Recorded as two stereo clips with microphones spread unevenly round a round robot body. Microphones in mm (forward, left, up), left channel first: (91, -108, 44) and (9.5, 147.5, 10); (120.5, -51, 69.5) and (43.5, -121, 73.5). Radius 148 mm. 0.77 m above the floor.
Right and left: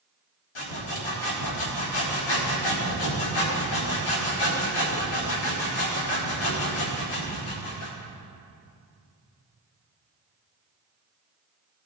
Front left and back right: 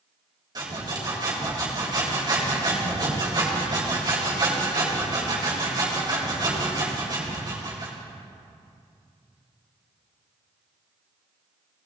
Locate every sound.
0.6 s sawing: 85° right, 3.5 m